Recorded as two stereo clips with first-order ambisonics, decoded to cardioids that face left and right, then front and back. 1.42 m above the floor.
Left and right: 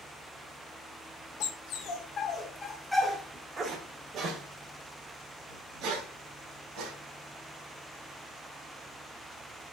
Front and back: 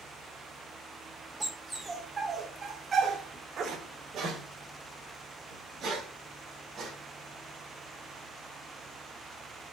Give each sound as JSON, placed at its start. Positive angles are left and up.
{"t": 1.4, "sound": "a dog barking", "azimuth_deg": 95, "distance_m": 1.5}